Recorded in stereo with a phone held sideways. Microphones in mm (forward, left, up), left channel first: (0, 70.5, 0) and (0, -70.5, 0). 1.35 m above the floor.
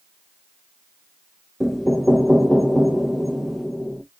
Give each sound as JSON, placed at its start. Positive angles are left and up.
{"t": 1.6, "sound": "knocking", "side_deg": -5, "distance_m": 0.7}